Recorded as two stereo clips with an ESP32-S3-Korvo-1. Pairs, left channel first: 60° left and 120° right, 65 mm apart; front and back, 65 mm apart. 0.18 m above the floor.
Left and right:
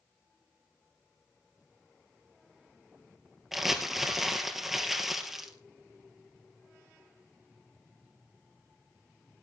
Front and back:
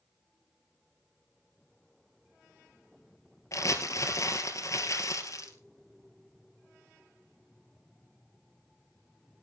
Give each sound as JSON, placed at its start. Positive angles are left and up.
{"t": 3.5, "sound": "crumpling", "azimuth_deg": -35, "distance_m": 2.5}